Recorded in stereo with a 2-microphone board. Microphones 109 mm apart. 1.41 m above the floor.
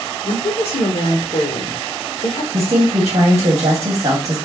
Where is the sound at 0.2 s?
60° left (ahead or behind), 0.6 m.